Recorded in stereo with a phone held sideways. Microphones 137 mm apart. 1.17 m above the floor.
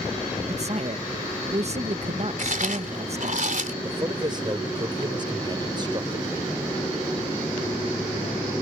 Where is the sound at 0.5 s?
50° right (ahead or behind).